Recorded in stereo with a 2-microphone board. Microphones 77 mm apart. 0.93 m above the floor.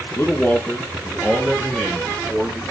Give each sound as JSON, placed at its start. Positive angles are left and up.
{"t": 0.2, "sound": "a man speaking", "side_deg": 30, "distance_m": 0.9}